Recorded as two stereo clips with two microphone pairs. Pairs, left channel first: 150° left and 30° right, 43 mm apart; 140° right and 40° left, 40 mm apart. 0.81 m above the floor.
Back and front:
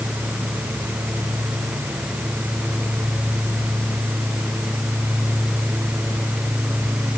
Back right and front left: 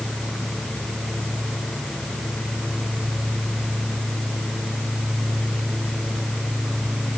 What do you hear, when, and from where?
Only background noise.